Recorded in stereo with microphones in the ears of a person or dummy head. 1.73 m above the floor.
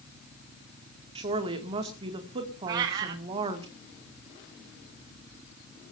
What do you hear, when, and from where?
1.1 s a woman speaking: 30° right (ahead or behind), 2.5 m
2.7 s a cat meowing: 25° right (ahead or behind), 1.2 m